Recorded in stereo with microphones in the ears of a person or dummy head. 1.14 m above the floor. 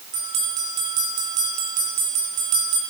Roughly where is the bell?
Right.